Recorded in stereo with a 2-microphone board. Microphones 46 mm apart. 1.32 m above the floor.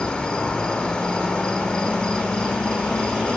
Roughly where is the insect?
Centre.